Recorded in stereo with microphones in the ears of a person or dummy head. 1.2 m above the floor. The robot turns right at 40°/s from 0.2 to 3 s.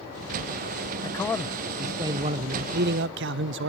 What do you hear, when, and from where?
1.0 s a man speaking: 160° left, 0.5 m; by 3.7 s 120° right, 0.5 m